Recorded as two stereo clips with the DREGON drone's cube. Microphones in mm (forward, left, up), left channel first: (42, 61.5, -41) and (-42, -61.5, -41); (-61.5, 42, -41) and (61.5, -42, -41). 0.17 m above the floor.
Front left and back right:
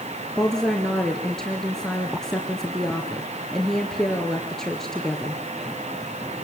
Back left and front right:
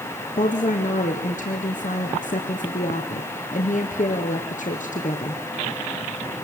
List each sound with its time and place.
0.4 s a woman speaking: 145° left, 2.5 m